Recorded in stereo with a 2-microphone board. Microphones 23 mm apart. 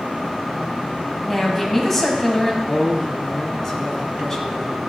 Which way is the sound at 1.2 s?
15° left (ahead or behind).